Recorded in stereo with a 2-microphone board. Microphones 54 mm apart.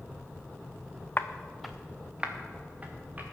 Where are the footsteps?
35° left (ahead or behind), 0.8 m; by 3.2 s 30° right (ahead or behind), 3.5 m.